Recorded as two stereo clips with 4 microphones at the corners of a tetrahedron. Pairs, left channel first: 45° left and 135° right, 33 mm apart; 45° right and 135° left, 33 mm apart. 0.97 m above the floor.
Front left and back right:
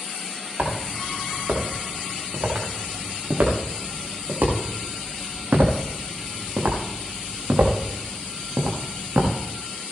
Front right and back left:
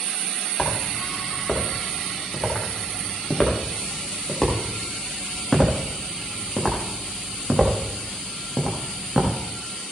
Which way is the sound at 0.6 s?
105° right.